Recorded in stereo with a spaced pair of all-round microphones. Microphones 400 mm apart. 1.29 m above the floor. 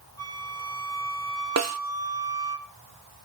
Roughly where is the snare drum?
Right.